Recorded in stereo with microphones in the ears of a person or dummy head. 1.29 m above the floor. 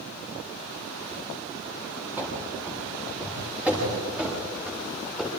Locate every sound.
2.2 s running footsteps: 10° right (ahead or behind), 8 m; by 5.3 s centre (ahead or behind), 9 m